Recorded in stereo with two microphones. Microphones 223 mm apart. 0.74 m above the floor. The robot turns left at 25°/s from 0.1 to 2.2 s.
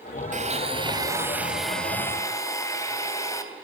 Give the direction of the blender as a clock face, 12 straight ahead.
5 o'clock.